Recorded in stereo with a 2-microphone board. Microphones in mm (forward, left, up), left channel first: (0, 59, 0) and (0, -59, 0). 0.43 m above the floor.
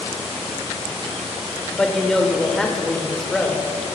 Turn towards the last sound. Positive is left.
turn(degrees=5)  # may be behind; listen again after turning